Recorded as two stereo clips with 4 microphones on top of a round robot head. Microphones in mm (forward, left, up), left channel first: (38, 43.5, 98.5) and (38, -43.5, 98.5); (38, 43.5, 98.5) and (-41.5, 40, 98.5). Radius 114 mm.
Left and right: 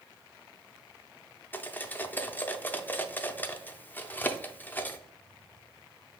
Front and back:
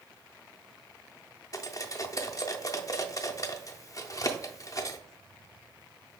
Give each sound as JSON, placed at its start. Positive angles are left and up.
{"t": 1.5, "sound": "cutlery clinking", "azimuth_deg": 30, "distance_m": 0.6}